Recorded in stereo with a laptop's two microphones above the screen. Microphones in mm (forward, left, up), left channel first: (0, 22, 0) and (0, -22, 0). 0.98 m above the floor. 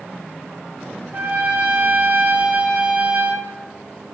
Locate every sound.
1.1 s a trumpet: 45° right (ahead or behind), 0.6 m